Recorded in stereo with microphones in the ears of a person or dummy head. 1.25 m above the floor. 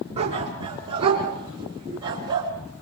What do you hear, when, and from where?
0.2 s a dog barking: 30° right (ahead or behind), 6.5 m; by 2.5 s 20° right (ahead or behind), 6 m